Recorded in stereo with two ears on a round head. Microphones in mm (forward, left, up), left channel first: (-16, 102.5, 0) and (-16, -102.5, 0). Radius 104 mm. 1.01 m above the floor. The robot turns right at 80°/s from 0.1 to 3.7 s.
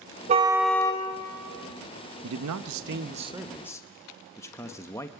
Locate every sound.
0.3 s a car horn: 30° right, 2.5 m; by 1.0 s 30° left, 2.5 m
2.2 s a man speaking: 105° right, 1.0 m; by 5.1 s 10° left, 1.0 m